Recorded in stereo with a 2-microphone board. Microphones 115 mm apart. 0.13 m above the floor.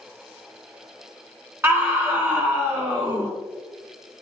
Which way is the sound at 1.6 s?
20° right (ahead or behind).